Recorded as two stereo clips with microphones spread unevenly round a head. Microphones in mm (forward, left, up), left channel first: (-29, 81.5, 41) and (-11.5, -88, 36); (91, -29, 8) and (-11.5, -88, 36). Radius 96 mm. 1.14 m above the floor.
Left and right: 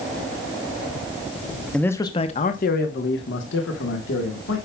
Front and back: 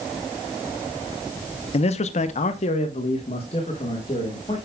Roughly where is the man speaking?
Ahead.